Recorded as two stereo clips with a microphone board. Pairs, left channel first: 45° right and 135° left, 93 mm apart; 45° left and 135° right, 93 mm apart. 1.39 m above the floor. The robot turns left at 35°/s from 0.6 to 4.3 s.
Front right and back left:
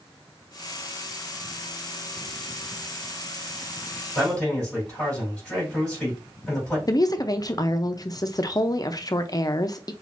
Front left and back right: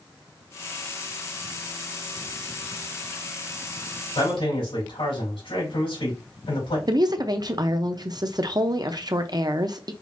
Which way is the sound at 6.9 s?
95° right.